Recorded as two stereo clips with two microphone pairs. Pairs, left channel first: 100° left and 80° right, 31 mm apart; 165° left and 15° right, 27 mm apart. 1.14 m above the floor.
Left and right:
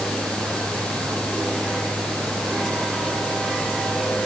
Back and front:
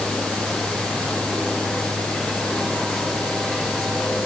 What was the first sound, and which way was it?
Only background noise.